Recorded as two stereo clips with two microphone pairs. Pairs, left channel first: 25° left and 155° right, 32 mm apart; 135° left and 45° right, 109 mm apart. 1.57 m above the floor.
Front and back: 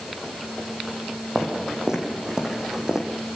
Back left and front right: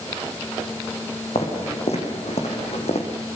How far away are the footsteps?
About 6 m.